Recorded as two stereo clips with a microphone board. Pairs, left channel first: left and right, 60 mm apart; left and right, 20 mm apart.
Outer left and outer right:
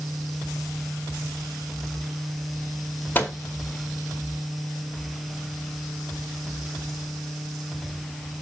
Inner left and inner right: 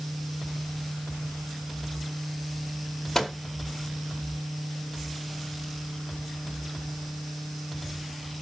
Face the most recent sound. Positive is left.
turn(degrees=30)  # may be behind; listen again after turning